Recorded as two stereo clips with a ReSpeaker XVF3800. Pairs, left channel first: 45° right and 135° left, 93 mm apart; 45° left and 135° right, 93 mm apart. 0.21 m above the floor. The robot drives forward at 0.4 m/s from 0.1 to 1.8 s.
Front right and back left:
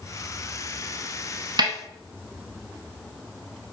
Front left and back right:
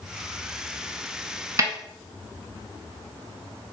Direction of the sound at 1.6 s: 170° left.